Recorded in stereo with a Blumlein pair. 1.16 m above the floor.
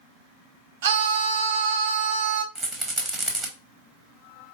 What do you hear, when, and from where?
0.8 s a scream: 50° right, 0.6 m
2.5 s a rattle: 20° right, 0.9 m